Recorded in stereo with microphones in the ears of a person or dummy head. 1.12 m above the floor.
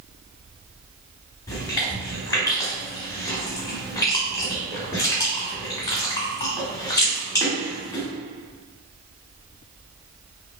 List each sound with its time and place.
1.5 s chewing: 20° left (ahead or behind), 1.3 m